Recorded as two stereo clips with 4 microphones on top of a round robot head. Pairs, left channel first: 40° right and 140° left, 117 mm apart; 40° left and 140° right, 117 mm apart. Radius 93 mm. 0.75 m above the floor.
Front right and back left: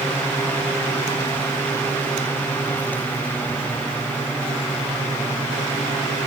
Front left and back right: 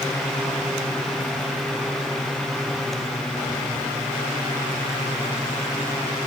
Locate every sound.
Only background noise.